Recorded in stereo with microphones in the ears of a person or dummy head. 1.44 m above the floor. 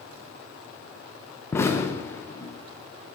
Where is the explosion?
15° left (ahead or behind), 0.6 m.